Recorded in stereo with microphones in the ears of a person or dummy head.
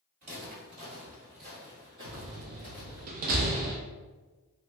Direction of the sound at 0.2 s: 45° right (ahead or behind).